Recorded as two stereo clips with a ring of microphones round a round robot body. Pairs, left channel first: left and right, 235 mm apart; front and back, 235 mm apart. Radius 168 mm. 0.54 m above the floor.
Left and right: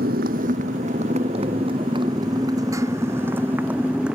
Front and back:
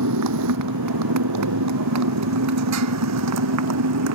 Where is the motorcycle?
155° right; by 4.2 s straight behind.